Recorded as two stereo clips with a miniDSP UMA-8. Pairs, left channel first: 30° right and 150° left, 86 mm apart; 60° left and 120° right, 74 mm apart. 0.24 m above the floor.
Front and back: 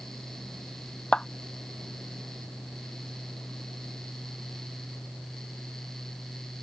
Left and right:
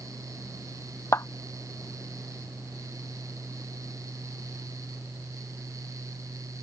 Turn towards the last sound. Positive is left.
turn(degrees=45)